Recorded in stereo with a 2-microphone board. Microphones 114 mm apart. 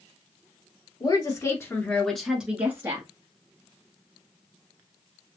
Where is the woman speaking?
40° left (ahead or behind), 1.5 m; by 3.1 s 30° right (ahead or behind), 1.5 m.